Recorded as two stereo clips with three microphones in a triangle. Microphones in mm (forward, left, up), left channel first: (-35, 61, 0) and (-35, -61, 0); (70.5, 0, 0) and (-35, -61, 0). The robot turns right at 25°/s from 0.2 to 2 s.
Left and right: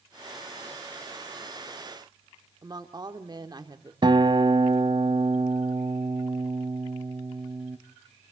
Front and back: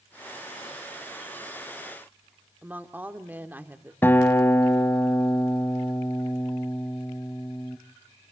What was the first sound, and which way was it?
A woman speaking, 85° right.